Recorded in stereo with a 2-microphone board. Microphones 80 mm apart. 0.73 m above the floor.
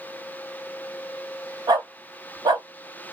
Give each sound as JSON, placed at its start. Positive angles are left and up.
{"t": 1.7, "sound": "a dog barking", "side_deg": -65, "distance_m": 1.2}